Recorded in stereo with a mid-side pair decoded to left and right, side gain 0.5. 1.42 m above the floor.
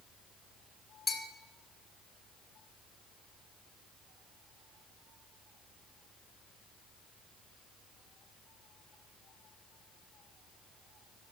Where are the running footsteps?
I don't hear running footsteps.